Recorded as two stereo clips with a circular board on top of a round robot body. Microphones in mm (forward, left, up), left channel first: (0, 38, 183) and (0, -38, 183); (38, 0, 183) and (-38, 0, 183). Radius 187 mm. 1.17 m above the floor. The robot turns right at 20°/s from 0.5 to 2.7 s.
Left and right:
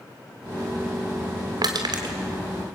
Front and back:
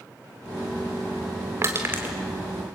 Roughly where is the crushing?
Behind right.